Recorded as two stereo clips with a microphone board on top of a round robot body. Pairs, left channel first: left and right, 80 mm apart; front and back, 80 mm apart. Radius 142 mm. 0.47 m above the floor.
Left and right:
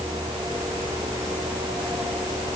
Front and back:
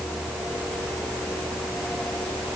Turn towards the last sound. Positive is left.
No sound to turn to.